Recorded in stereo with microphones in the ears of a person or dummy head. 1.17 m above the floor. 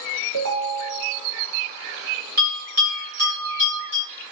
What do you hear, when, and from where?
0.3 s a ringtone: 75° right (ahead or behind), 1.1 m
2.4 s a bell: 50° right (ahead or behind), 1.9 m